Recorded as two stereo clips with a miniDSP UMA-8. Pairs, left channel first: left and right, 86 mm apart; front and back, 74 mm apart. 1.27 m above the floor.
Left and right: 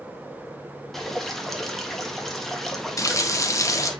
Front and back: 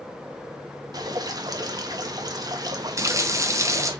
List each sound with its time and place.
0.9 s dripping: 175° left, 0.8 m
3.0 s a running tap: 140° left, 0.7 m